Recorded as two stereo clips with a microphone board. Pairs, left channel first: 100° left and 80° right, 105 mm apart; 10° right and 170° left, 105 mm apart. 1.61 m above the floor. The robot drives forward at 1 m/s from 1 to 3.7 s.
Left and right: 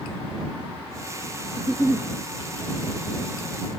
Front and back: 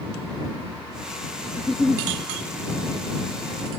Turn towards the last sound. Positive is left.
turn(degrees=175)